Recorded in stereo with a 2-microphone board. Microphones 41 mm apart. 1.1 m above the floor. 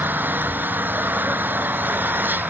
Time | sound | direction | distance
0.0 | an engine running | 50° right (ahead or behind) | ?